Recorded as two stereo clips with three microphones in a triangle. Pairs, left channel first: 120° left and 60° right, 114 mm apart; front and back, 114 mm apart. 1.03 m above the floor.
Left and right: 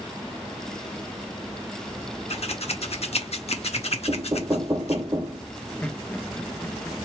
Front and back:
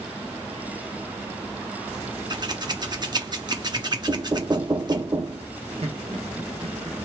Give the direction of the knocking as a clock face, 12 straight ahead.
4 o'clock.